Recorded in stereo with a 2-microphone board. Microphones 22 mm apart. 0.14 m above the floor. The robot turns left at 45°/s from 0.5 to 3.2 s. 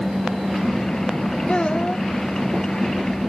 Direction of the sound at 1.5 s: 40° left (ahead or behind).